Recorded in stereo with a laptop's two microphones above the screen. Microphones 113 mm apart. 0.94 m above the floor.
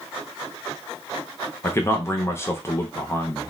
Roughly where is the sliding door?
No sliding door in this recording.